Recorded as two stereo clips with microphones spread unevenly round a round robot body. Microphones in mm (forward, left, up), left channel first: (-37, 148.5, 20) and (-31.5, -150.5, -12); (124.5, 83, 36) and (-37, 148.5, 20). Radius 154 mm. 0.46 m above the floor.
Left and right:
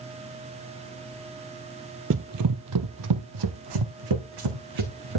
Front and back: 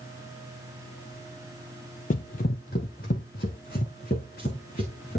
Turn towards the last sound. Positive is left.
turn(degrees=-85)